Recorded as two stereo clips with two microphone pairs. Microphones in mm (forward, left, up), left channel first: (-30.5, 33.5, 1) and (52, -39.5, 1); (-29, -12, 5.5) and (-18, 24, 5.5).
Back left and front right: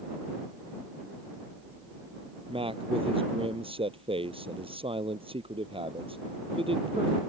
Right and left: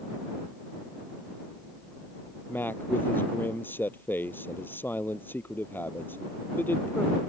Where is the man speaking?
80° right.